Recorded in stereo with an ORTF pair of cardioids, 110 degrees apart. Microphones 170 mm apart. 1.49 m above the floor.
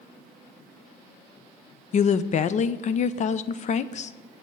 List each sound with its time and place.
1.9 s a woman speaking: 45° left, 0.6 m